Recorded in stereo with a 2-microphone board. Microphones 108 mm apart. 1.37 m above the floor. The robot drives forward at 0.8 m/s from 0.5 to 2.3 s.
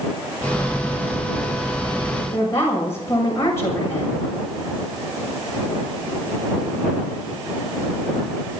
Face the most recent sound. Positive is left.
turn(degrees=25)  # may be behind; listen again after turning